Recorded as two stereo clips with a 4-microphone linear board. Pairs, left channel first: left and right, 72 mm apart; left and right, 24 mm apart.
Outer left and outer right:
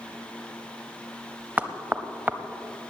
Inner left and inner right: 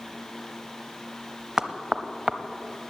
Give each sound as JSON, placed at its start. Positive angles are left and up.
{"t": 1.6, "sound": "knocking", "side_deg": -20, "distance_m": 0.7}